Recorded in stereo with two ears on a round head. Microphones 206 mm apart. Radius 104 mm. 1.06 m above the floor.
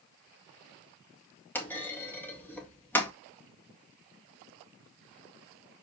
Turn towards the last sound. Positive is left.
turn(degrees=10)  # may be behind; listen again after turning